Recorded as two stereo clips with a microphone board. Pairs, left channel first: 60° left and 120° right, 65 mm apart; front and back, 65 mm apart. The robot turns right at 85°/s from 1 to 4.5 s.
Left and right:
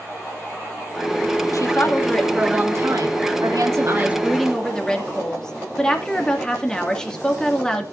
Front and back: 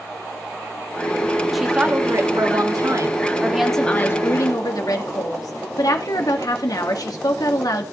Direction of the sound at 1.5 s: 90° left.